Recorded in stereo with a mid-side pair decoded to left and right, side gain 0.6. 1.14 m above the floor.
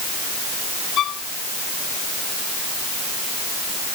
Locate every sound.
1.0 s a violin: 55° left